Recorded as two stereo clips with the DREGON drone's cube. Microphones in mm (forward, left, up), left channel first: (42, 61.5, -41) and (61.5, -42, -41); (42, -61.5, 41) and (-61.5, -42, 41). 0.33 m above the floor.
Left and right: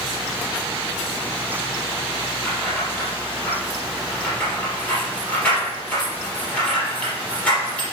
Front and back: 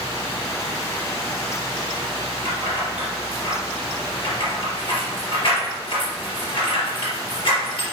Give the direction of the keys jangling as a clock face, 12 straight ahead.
11 o'clock.